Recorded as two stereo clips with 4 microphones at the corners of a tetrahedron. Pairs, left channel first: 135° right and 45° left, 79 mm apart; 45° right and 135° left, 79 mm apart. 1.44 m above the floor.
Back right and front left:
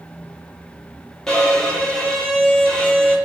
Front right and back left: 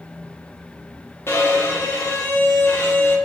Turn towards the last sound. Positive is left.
turn(degrees=-60)